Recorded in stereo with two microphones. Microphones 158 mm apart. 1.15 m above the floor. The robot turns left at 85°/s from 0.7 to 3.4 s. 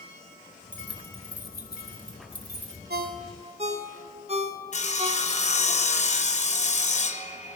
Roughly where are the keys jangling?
Centre.